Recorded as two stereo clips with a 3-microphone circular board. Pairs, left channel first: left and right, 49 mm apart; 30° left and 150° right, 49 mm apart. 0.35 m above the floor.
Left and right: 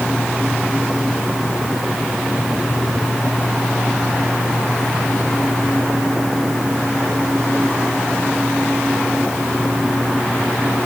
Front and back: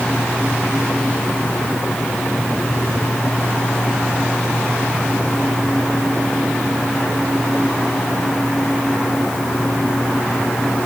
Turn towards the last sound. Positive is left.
No sound to turn to.